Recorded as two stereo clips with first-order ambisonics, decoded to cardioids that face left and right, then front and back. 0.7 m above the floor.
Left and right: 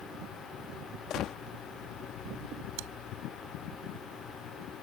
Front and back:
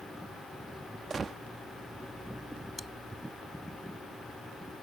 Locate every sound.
1.1 s a gunshot: 115° left
2.8 s chewing: 85° right